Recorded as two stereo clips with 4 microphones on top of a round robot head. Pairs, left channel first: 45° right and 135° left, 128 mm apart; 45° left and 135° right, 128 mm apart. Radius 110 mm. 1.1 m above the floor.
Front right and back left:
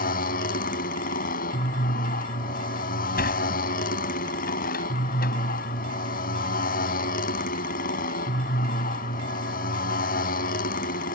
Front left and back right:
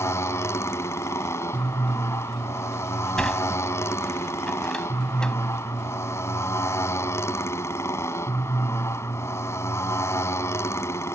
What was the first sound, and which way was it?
A motorcycle, 25° right.